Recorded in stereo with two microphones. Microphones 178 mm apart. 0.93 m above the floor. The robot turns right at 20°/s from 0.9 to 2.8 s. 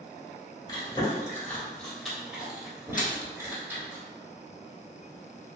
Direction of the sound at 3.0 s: 50° left (ahead or behind).